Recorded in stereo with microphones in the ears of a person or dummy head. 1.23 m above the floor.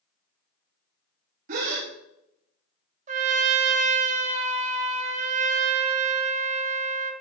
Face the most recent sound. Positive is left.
turn(degrees=-40)  # may be behind; listen again after turning